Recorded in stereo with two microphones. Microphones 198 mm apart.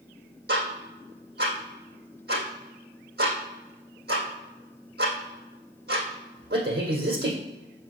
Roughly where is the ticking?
Right.